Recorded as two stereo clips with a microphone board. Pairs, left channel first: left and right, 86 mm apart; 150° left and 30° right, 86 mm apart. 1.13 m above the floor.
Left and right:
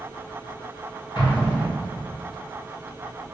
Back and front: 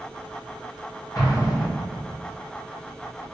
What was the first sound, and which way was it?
An explosion, 110° left.